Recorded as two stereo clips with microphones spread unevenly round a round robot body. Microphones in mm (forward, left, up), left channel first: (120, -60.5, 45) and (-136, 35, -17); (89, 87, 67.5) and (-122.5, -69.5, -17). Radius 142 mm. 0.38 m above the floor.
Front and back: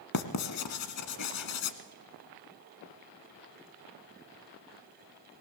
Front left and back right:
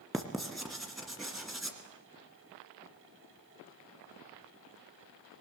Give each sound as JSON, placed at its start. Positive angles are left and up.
{"t": 0.1, "sound": "writing", "azimuth_deg": -55, "distance_m": 1.5}